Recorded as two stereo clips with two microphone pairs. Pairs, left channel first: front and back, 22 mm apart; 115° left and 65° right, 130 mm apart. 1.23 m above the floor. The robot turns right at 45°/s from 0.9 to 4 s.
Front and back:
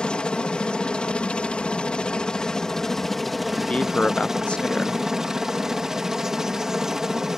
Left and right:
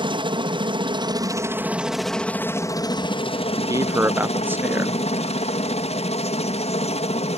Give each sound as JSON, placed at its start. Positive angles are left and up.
{"t": 0.0, "sound": "a helicopter", "azimuth_deg": -25}
{"t": 3.6, "sound": "a man speaking", "azimuth_deg": -5}